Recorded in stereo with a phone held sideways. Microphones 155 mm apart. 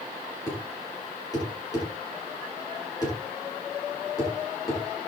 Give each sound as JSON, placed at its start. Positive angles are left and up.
{"t": 0.5, "sound": "a thud", "side_deg": 25, "distance_m": 8.5}